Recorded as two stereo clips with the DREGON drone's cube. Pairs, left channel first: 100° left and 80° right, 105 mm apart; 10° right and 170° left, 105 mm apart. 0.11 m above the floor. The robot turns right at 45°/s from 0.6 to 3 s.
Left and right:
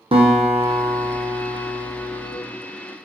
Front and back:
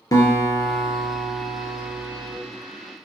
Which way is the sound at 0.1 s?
65° right.